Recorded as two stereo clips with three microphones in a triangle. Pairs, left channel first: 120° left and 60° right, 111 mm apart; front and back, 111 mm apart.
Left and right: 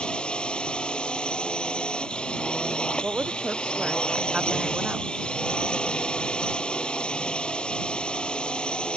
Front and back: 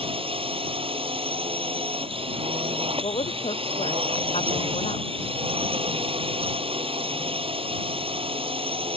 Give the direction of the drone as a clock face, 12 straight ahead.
5 o'clock.